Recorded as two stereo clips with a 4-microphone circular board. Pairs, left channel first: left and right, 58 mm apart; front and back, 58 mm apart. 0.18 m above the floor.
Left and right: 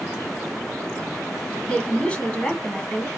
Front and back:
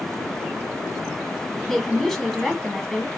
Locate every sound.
1.7 s a woman speaking: 75° left, 1.6 m